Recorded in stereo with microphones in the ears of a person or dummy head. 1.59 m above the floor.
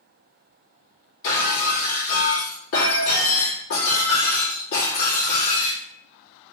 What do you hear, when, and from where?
1.2 s breaking glass: 70° left (ahead or behind), 1.9 m